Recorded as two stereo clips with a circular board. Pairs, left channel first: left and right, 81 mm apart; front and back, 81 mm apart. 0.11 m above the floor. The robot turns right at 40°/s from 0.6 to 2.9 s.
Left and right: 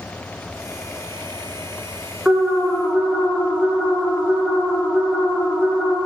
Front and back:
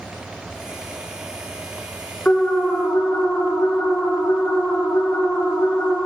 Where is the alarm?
40° right, 1.0 m; by 6.0 s 15° right, 1.0 m.